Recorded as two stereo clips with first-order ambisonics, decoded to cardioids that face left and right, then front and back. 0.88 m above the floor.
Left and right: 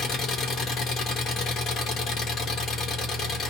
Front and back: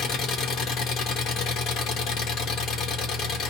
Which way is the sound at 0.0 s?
40° left.